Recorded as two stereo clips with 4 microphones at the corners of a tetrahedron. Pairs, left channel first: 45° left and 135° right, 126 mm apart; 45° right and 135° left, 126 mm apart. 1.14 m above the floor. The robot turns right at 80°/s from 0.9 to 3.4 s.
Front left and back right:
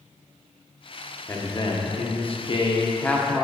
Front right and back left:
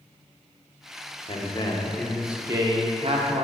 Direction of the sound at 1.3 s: 25° right.